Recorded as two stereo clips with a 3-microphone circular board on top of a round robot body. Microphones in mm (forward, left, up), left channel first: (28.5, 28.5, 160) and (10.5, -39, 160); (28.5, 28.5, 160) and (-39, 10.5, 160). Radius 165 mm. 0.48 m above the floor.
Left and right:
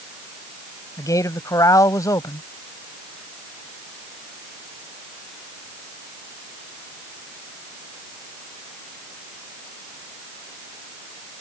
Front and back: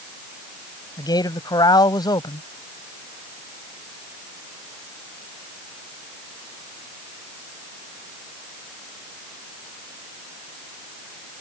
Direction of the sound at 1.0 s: 35° left.